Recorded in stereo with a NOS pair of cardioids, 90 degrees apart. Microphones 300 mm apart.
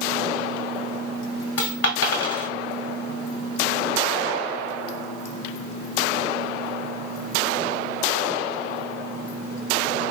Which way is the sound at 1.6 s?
50° left.